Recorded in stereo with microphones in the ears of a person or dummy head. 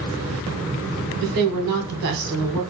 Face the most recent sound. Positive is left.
turn(degrees=-55)  # may be behind; listen again after turning